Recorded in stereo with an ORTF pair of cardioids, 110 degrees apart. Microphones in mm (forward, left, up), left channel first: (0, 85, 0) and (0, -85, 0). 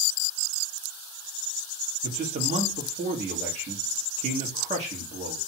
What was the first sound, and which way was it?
A man speaking, 45° right.